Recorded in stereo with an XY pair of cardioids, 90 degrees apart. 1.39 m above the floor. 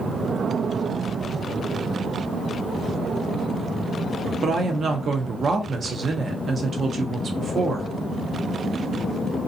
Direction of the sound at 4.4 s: 55° right.